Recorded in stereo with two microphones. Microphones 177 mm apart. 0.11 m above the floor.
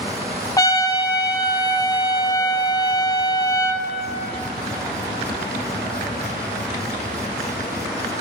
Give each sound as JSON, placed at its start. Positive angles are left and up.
{"t": 0.6, "sound": "a trumpet", "side_deg": 20, "distance_m": 0.6}